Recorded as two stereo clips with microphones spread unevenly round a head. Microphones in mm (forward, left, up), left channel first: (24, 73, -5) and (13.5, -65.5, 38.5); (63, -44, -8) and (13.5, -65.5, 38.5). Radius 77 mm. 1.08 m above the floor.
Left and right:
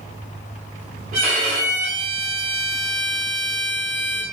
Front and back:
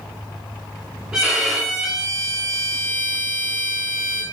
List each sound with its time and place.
1.1 s a violin: 110° right, 1.2 m